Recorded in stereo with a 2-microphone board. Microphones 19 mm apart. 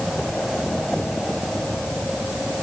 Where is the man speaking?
No man speaking in this recording.